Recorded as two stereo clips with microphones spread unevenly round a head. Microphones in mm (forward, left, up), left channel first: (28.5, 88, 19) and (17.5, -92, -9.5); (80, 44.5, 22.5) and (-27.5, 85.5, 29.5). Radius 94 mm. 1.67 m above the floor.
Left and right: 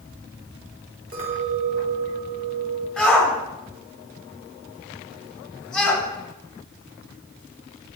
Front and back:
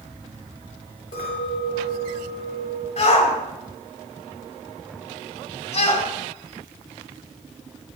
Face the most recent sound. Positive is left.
turn(degrees=0)